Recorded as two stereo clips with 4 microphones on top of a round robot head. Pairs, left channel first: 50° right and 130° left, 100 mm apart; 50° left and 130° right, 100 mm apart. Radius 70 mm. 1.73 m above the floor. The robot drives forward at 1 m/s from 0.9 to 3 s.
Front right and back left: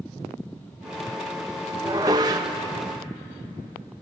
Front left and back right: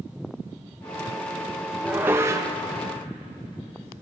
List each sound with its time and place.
1.8 s dishes clattering: 160° left, 0.9 m; by 2.6 s 175° left, 1.3 m